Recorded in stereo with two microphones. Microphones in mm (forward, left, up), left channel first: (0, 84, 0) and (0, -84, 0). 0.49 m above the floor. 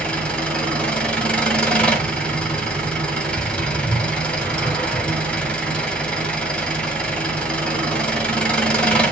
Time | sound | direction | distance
0.0 | an engine running | 5° left (ahead or behind) | 1.8 m